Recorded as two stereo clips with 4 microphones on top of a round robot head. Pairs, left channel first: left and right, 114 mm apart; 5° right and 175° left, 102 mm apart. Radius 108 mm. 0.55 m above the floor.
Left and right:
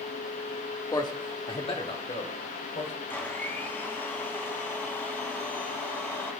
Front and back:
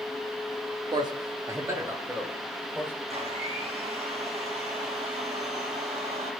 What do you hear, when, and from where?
0.9 s a man speaking: 140° left, 1.4 m; by 2.9 s 105° left, 3.5 m
3.1 s a blender: 160° left, 2.5 m